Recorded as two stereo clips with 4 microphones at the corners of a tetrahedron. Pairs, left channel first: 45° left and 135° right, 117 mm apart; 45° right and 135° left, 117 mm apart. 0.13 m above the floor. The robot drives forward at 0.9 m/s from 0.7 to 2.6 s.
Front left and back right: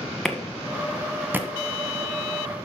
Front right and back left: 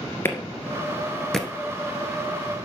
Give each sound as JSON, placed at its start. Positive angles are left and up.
{"t": 0.2, "sound": "a clap", "azimuth_deg": -40, "distance_m": 1.3}